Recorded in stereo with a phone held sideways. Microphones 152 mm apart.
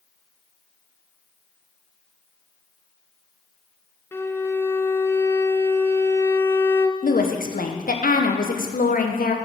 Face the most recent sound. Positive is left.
turn(degrees=70)  # may be behind; listen again after turning